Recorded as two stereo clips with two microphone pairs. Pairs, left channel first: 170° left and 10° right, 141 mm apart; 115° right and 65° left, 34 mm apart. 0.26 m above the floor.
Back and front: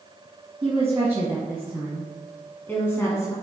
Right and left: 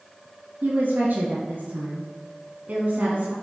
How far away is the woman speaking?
About 2 m.